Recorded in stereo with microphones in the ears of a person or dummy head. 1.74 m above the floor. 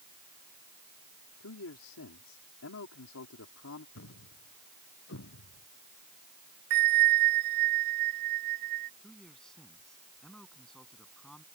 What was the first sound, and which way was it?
A man speaking, 85° left.